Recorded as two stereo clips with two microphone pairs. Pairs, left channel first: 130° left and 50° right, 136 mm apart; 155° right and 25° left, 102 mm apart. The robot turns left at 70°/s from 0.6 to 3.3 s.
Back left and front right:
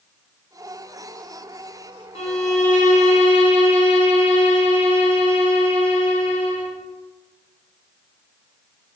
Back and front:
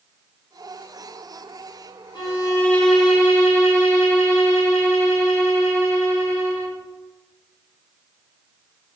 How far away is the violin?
About 0.6 m.